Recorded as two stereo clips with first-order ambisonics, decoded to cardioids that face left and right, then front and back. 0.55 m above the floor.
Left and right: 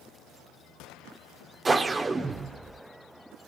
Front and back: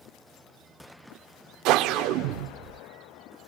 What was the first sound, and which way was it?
A whoosh, 170° right.